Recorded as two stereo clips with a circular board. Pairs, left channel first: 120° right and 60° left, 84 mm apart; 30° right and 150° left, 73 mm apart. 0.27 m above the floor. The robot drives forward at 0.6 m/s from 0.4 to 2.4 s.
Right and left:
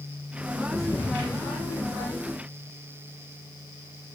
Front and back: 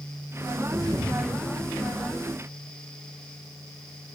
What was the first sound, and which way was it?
A thud, 110° left.